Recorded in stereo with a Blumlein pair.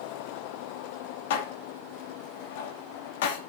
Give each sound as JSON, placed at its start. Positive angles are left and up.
{"t": 1.3, "sound": "dishes clattering", "azimuth_deg": 55, "distance_m": 1.8}